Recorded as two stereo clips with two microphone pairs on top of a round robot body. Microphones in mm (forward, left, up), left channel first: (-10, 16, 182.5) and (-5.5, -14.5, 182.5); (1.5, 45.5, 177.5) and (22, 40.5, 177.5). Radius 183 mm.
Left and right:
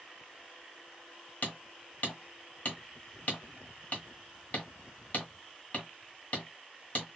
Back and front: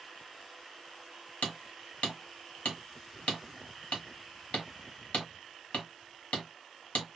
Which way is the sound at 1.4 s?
140° left.